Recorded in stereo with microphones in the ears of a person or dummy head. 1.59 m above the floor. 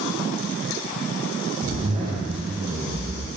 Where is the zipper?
30° right (ahead or behind), 0.5 m.